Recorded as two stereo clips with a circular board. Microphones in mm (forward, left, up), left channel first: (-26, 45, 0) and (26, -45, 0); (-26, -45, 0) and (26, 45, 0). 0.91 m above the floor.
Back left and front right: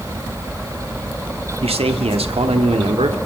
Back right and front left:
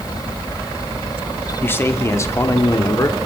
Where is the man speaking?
50° right, 2.5 m; by 3.2 s 65° right, 3 m.